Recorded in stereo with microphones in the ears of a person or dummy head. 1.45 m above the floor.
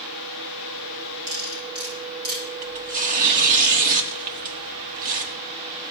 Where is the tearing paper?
45° right (ahead or behind), 1.3 m.